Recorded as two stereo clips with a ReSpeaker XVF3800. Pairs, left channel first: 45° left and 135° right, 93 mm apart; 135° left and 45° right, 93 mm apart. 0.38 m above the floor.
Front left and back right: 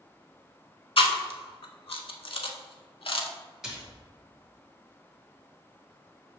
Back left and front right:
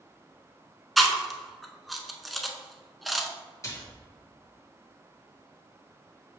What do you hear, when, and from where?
1.0 s chewing: 45° left, 0.5 m
3.6 s a splash: 140° left, 1.3 m